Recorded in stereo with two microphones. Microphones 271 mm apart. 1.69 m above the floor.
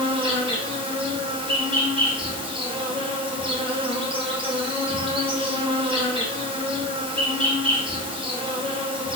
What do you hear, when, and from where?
0.0 s an insect: 20° right (ahead or behind), 0.8 m